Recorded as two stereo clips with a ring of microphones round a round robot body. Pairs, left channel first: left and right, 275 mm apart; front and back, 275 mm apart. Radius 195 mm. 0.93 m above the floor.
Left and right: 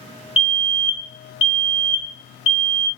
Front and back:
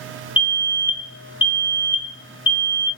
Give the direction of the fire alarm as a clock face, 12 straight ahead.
10 o'clock.